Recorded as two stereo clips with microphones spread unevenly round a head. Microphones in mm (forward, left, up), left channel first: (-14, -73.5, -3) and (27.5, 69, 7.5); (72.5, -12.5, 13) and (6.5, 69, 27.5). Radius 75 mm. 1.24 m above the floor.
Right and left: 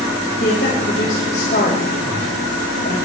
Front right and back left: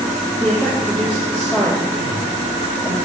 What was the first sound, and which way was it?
A woman speaking, 145° right.